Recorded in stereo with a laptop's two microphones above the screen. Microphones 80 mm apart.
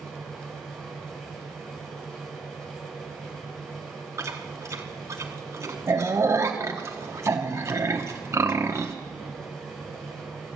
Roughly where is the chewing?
Right.